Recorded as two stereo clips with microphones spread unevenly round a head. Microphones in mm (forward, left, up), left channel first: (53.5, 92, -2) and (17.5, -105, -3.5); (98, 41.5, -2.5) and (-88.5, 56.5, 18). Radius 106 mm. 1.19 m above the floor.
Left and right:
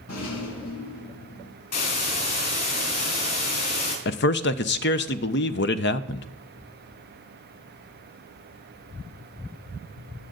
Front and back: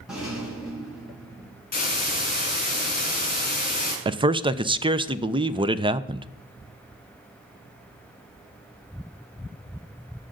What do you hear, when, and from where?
0.1 s a rattle: 90° left, 5.5 m
1.7 s a hiss: 40° left, 5.5 m
4.0 s a man speaking: 110° left, 0.6 m